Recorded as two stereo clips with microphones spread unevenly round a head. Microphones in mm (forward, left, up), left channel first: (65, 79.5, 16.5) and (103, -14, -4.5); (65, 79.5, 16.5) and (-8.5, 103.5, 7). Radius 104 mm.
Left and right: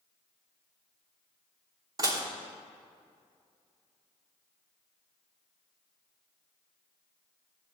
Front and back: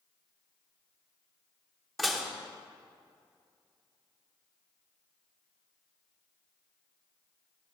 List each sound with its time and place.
2.0 s dishes clattering: 85° right, 0.9 m